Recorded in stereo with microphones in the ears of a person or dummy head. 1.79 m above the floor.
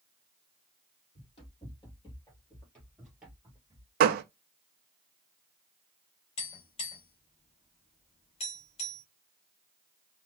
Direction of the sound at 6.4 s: 25° left (ahead or behind).